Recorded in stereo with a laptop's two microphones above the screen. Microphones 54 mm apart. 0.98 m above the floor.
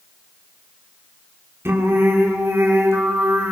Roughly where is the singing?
Right.